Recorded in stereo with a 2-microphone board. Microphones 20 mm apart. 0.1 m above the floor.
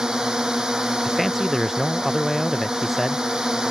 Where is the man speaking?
10° right (ahead or behind).